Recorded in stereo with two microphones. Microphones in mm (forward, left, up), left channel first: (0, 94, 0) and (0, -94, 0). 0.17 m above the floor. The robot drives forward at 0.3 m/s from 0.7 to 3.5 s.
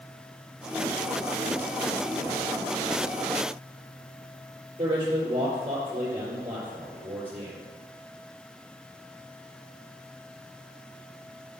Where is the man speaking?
30° right (ahead or behind), 3 m.